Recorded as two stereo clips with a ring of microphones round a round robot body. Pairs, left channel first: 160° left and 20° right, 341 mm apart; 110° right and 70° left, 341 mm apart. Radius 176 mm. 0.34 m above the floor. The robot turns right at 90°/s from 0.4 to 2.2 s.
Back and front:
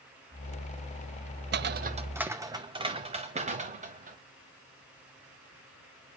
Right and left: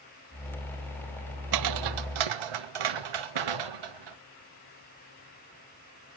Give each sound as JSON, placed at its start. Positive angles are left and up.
{"t": 1.5, "sound": "footsteps", "azimuth_deg": 35, "distance_m": 0.5}